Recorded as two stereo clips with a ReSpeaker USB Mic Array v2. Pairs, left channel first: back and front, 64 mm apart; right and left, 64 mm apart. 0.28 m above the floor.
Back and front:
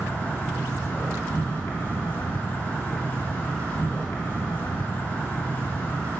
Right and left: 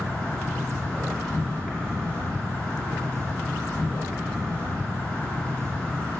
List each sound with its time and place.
0.0 s an insect: 140° right, 2 m